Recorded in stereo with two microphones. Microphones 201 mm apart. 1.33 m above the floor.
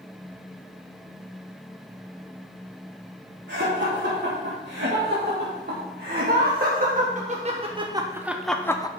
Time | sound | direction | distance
3.5 | laughter | 65° right (ahead or behind) | 3.5 m